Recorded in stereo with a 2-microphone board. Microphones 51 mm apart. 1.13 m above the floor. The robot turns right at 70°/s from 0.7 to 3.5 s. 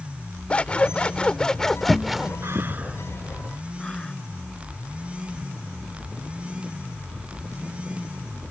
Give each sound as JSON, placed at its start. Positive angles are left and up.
{"t": 0.5, "sound": "scissors", "side_deg": 20}
{"t": 2.4, "sound": "breathing", "side_deg": -55}